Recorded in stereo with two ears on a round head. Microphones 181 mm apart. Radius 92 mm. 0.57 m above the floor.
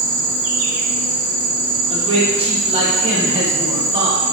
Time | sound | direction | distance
0.0 | an insect | 80° right | 0.9 m
1.9 | a man speaking | 30° right (ahead or behind) | 0.9 m